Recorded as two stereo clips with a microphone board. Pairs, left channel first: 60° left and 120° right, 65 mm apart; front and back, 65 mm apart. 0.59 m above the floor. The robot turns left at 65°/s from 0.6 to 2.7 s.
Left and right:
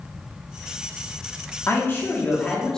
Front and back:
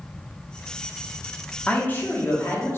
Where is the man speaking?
55° left, 1.0 m; by 2.8 s 10° right, 1.0 m.